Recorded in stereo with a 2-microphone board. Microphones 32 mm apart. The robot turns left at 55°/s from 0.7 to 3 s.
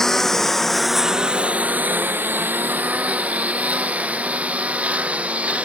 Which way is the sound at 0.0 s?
15° left (ahead or behind).